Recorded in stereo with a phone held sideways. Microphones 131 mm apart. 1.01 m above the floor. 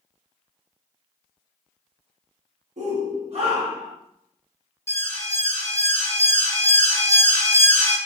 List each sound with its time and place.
2.8 s a shout: 70° right (ahead or behind), 1.0 m; by 4.0 s 35° right (ahead or behind), 1.1 m
4.9 s an alarm: 20° left (ahead or behind), 1.2 m